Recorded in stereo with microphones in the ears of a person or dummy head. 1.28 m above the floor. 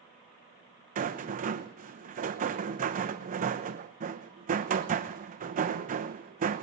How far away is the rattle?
About 0.9 m.